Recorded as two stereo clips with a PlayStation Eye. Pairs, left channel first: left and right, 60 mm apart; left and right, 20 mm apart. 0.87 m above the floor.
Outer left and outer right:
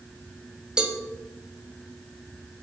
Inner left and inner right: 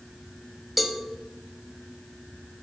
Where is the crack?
No crack in this recording.